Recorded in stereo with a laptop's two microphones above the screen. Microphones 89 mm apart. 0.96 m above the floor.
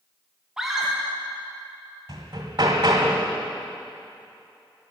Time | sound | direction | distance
0.6 | a scream | 5° right (ahead or behind) | 0.8 m
2.1 | hammering | 55° right (ahead or behind) | 1.7 m